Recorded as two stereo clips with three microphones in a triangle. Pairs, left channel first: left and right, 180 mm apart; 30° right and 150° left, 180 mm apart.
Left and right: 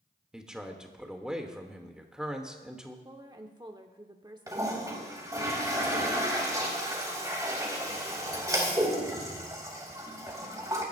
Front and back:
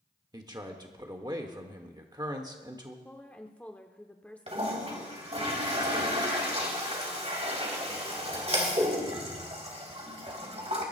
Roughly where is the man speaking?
Behind.